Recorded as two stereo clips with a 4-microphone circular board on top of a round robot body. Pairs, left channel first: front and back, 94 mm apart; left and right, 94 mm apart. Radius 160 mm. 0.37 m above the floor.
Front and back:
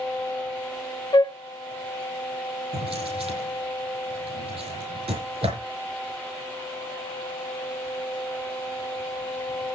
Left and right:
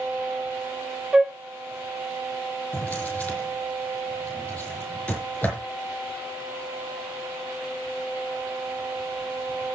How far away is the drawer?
About 5.5 m.